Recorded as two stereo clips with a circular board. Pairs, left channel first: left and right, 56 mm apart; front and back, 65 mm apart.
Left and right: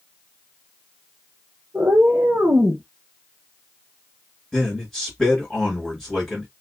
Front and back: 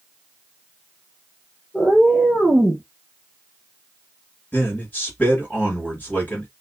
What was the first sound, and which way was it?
A cat meowing, 80° right.